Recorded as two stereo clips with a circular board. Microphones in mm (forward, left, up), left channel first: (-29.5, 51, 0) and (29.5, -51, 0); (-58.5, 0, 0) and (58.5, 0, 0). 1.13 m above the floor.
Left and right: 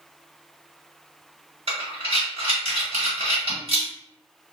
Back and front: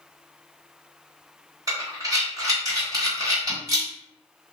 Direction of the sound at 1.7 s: 50° right.